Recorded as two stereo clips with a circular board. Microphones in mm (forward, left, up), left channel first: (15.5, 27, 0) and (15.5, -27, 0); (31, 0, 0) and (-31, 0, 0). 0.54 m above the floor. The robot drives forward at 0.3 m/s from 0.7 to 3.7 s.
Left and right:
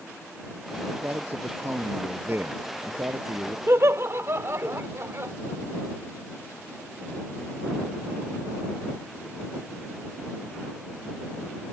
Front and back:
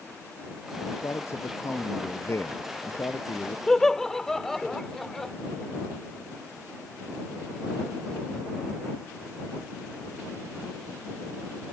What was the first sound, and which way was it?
A man speaking, 45° right.